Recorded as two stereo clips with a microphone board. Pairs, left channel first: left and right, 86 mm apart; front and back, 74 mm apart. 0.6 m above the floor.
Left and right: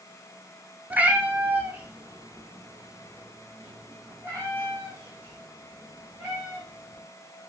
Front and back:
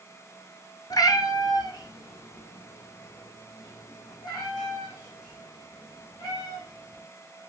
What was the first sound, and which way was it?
A cat meowing, 20° right.